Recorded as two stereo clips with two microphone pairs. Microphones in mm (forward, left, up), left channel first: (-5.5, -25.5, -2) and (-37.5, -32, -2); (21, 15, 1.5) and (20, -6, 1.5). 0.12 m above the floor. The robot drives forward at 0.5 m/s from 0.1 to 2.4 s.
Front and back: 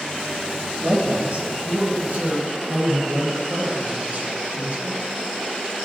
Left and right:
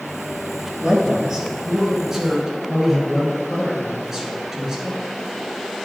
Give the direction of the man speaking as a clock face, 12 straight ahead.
4 o'clock.